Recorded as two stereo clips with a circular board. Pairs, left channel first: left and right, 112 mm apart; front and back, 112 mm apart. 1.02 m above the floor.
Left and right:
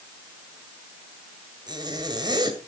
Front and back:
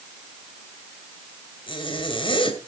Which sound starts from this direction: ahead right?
A zipper, at 1.7 s.